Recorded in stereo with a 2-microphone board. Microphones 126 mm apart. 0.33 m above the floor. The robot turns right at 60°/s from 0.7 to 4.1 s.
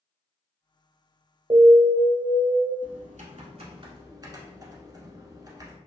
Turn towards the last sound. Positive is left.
turn(degrees=-30)